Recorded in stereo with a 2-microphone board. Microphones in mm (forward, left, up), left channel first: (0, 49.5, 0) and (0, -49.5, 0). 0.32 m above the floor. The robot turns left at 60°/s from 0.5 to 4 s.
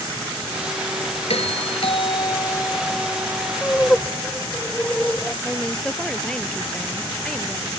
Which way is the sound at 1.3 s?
105° left.